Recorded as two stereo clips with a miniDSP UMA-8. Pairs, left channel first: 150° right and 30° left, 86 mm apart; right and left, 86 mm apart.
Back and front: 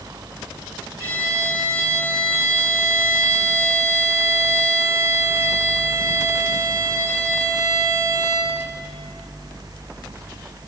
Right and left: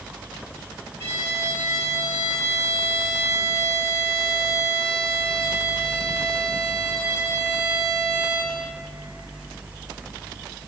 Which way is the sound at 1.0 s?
30° right.